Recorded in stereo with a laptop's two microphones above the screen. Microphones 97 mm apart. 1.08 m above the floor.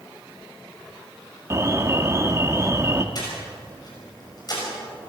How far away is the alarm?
About 1.4 m.